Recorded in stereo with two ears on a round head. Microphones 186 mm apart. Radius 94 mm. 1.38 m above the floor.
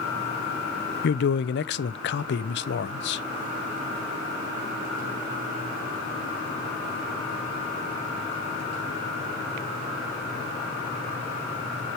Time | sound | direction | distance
1.0 | a man speaking | 60° left (ahead or behind) | 0.7 m